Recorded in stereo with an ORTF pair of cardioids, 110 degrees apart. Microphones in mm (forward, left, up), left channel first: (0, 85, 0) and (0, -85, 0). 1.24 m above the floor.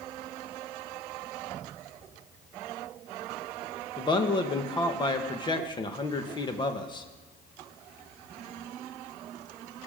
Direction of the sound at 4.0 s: 25° left.